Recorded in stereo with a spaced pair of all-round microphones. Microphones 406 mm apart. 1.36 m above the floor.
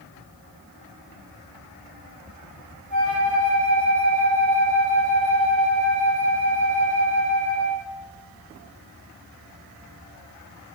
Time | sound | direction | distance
2.9 | a flute | 45° left (ahead or behind) | 1.1 m